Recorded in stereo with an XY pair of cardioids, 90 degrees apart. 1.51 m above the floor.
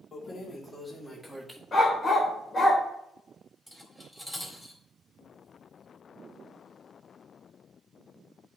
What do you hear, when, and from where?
0.1 s keys jangling: 45° left, 2.5 m; by 1.6 s 10° right, 1.8 m
1.7 s a dog barking: 30° left, 3 m
3.7 s cutlery clinking: straight ahead, 3.5 m